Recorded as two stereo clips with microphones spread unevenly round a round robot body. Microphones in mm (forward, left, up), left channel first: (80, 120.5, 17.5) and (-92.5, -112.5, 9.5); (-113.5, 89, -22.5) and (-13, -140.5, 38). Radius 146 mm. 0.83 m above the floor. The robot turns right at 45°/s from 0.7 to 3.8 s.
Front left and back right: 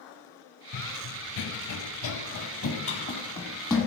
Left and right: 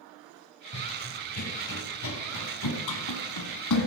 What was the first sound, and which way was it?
Running footsteps, 55° left.